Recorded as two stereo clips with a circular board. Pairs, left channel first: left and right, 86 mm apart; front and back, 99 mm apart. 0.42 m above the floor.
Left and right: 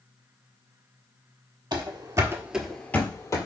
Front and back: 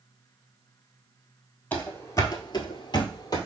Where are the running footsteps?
70° right, 0.7 m; by 3.5 s 45° left, 0.8 m.